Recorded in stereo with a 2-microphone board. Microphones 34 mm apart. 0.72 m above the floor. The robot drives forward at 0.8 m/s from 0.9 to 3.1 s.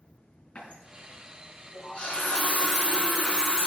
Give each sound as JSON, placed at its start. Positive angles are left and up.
{"t": 0.6, "sound": "a running tap", "side_deg": 50, "distance_m": 5.0}